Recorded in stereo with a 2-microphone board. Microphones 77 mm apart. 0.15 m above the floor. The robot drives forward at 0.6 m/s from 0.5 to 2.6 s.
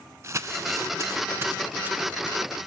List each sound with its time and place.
0.2 s crumpling: 40° right (ahead or behind), 0.6 m; by 2.4 s 20° right (ahead or behind), 1.2 m